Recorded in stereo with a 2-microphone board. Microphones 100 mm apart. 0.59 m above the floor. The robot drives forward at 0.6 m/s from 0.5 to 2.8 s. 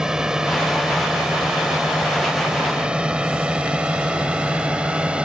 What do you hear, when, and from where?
0.0 s a drone: 5° right (ahead or behind); by 5.3 s 10° right (ahead or behind)